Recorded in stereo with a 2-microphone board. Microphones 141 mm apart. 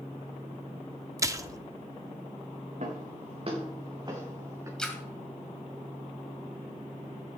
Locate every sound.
1.2 s a splash: 20° right (ahead or behind), 0.6 m
2.8 s footsteps: 55° right (ahead or behind), 3.5 m; by 4.7 s 20° right (ahead or behind), 4 m
4.8 s a splash: 5° left (ahead or behind), 2 m